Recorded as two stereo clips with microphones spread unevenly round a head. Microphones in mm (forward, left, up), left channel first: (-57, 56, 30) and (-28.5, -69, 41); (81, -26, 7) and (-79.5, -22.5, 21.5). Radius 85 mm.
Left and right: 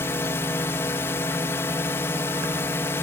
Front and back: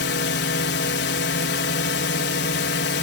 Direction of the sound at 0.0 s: 25° left.